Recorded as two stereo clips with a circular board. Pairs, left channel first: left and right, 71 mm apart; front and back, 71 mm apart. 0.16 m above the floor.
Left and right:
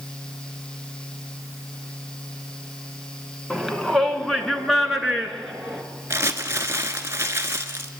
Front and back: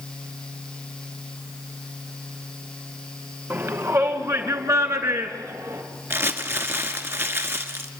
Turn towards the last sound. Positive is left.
turn(degrees=-135)